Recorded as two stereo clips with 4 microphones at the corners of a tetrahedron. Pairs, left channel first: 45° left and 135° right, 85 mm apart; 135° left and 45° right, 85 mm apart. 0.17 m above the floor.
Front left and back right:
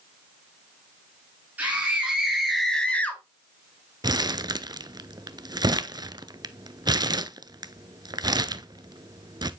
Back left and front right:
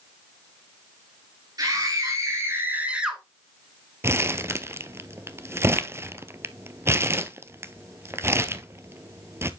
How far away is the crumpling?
About 0.7 m.